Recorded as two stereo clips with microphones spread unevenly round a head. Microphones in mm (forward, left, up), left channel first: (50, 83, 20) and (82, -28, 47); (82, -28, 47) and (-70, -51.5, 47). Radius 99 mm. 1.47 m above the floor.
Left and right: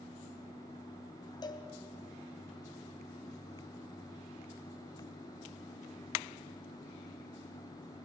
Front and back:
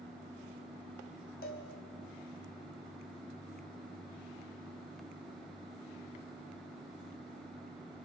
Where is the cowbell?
50° left, 2.5 m.